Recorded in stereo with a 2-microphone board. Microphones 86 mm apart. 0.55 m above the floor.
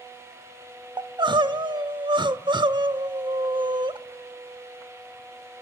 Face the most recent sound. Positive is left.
turn(degrees=-65)  # may be behind; listen again after turning